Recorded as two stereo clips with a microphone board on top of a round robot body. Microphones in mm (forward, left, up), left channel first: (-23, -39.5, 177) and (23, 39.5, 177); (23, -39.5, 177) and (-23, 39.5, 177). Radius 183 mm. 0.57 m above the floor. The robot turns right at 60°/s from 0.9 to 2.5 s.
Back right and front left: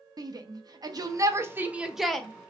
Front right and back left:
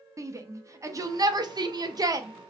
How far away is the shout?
About 0.8 m.